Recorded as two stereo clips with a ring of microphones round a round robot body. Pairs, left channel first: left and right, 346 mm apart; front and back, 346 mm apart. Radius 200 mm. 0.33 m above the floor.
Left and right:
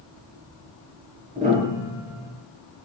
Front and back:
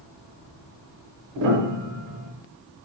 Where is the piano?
160° right, 0.7 m.